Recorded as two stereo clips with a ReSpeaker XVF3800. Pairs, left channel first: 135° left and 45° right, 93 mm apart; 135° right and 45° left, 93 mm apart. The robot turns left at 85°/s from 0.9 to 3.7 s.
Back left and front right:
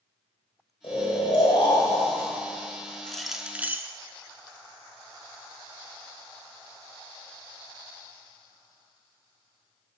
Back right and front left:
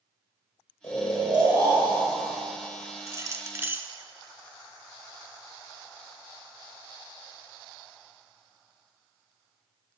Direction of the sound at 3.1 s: 60° left.